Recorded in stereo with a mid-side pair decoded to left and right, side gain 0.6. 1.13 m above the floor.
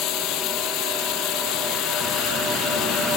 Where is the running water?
70° left.